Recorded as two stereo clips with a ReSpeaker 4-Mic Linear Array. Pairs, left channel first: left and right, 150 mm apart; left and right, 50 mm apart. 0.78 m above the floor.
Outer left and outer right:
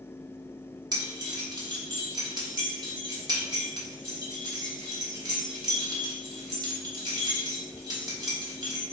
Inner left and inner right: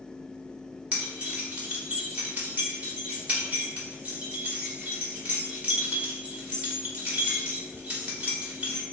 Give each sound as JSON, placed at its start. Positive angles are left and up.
{"t": 0.9, "sound": "keys jangling", "side_deg": -25, "distance_m": 1.5}